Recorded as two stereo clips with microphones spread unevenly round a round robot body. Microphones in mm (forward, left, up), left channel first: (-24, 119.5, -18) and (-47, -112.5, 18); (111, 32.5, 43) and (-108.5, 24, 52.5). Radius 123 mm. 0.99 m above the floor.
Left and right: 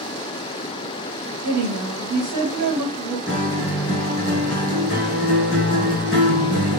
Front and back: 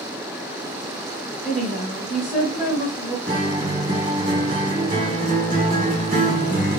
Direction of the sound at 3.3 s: 130° left.